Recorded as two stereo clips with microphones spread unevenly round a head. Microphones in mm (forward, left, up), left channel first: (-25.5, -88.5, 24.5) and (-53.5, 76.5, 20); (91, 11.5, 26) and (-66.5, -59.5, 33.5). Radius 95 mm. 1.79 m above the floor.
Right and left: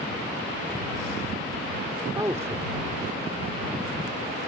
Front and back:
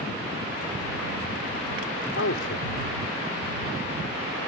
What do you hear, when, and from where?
2.1 s a man speaking: 25° left